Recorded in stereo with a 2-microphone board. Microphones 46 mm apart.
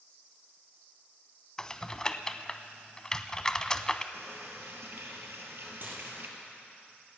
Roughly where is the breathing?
I don't hear breathing.